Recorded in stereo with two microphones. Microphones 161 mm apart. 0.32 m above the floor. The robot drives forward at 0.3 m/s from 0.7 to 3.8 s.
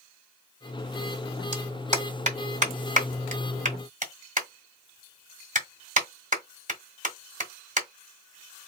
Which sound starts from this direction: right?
A clap, at 1.5 s.